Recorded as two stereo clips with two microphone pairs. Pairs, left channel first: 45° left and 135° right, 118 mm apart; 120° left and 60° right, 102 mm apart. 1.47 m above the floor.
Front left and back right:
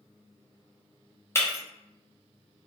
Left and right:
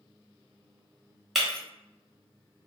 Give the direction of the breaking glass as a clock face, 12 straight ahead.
11 o'clock.